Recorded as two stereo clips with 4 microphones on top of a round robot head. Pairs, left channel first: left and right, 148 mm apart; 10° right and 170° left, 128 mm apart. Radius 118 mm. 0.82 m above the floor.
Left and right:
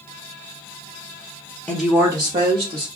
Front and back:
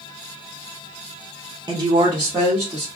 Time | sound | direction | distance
1.7 | a woman speaking | 160° left | 0.8 m